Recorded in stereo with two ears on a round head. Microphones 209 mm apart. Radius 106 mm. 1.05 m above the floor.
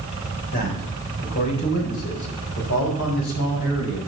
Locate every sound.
0.5 s a man speaking: 40° left (ahead or behind), 4 m; by 4.0 s 60° left (ahead or behind), 5.5 m